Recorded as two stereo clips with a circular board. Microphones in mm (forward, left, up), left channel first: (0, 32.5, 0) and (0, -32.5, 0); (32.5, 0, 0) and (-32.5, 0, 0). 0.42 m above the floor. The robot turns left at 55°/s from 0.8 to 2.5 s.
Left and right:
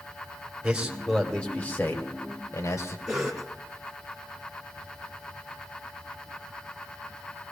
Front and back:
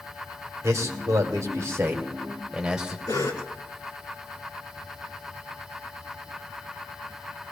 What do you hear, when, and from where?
0.6 s a man speaking: 165° right, 1.9 m; by 3.0 s 100° left, 1.9 m
3.1 s a cough: 5° right, 4 m